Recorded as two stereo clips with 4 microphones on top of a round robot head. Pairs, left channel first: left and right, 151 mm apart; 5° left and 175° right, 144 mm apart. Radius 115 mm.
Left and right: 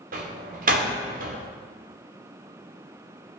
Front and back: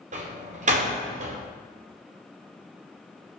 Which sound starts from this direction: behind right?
A door slam, at 0.1 s.